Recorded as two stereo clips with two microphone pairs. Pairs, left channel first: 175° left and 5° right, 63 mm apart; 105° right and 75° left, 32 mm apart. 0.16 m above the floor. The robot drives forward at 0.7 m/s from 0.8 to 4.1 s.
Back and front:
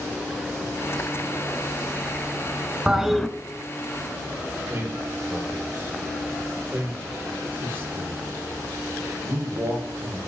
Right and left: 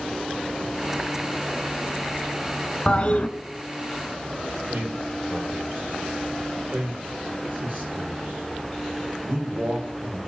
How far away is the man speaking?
About 4.5 m.